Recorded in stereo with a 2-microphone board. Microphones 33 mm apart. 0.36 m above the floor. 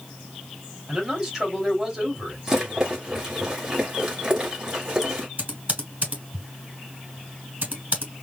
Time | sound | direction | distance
0.9 | a man speaking | 20° right (ahead or behind) | 2.5 m
2.5 | a rattle | 20° right (ahead or behind) | 2 m
5.4 | typing on a keyboard | 45° right (ahead or behind) | 2.5 m